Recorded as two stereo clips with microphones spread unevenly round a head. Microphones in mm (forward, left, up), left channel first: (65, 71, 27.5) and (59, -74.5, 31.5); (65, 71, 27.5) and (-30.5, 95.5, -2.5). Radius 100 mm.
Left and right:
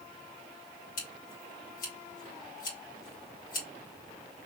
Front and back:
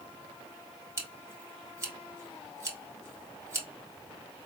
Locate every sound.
1.0 s scissors: 110° left, 2.5 m